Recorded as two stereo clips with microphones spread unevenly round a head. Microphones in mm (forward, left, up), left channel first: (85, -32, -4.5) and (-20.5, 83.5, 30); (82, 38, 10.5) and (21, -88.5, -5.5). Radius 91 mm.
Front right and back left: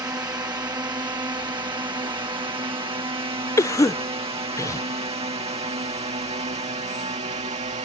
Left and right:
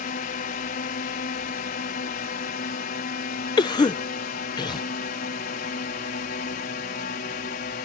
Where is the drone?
60° left; by 7.9 s 85° left.